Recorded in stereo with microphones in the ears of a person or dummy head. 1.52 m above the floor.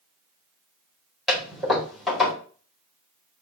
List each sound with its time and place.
1.3 s a toilet flushing: centre (ahead or behind), 4 m